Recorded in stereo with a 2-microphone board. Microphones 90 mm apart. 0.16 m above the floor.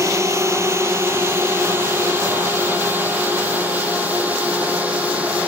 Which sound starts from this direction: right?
A drone, at 0.0 s.